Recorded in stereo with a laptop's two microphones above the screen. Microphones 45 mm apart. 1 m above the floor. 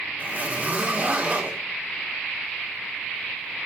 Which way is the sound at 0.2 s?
35° right (ahead or behind).